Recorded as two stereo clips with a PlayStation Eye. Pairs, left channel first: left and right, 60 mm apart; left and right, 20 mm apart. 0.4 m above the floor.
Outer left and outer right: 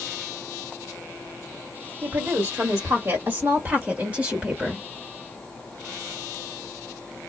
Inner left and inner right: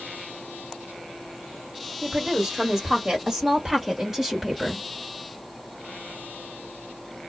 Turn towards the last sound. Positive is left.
turn(degrees=-15)  # may be behind; listen again after turning